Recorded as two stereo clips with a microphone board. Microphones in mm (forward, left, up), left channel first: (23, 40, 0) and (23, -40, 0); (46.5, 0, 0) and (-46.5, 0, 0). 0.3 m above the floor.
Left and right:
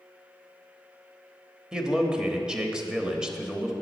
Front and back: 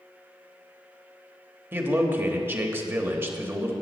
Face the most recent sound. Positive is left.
turn(degrees=-160)